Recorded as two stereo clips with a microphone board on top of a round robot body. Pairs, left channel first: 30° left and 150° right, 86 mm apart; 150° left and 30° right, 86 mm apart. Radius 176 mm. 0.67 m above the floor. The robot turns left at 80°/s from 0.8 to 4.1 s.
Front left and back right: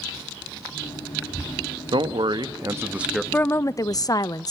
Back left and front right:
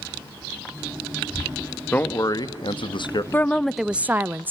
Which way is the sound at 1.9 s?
140° right.